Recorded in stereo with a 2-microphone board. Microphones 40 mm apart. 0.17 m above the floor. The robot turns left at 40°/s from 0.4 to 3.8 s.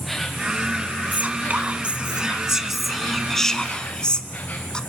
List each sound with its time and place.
0.0 s an insect: 175° left, 3 m; by 4.9 s 40° left, 3 m
1.1 s whispering: 105° right, 1.7 m; by 4.8 s 150° left, 1.7 m